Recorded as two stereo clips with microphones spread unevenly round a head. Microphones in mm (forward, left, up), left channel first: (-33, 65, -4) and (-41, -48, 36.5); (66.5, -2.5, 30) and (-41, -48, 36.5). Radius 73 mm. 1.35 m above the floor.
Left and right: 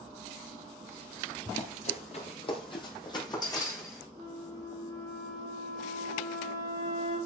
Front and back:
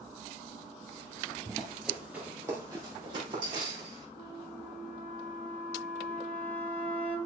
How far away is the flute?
About 6.5 m.